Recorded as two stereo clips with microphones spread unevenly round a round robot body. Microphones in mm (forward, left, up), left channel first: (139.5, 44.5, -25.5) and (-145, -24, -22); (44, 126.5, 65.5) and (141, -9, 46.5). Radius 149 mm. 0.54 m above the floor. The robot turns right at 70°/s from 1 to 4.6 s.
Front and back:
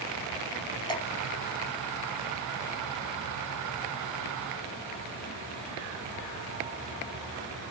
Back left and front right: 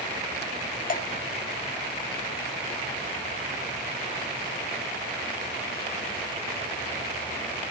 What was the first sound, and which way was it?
Dripping, 90° left.